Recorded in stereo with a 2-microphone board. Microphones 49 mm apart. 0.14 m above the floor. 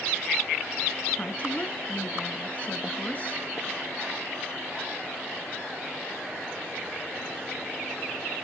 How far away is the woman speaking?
About 1.2 m.